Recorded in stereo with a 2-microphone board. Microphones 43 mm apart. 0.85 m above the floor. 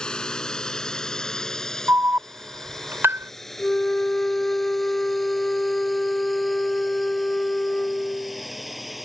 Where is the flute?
20° left (ahead or behind).